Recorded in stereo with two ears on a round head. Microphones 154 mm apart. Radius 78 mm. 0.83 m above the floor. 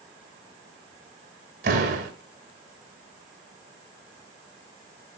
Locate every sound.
1.6 s a door slam: 60° right (ahead or behind), 4.5 m